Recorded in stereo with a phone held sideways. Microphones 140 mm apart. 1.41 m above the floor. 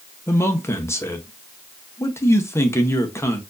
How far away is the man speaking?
About 0.9 m.